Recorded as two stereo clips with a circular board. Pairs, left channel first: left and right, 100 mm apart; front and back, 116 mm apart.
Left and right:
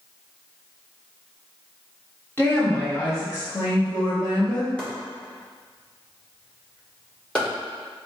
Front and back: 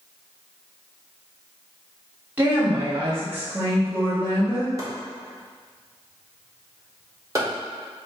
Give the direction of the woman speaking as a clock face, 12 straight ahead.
8 o'clock.